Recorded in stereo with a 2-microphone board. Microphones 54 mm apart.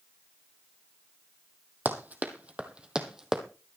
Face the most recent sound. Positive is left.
turn(degrees=-10)  # may be behind; listen again after turning